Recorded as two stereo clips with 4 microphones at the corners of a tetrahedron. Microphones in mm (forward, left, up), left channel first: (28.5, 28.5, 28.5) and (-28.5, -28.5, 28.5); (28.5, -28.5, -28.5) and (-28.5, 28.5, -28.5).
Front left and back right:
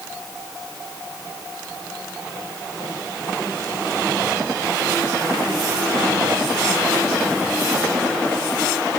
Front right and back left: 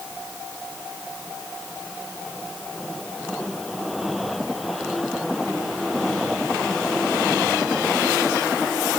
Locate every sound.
Only background noise.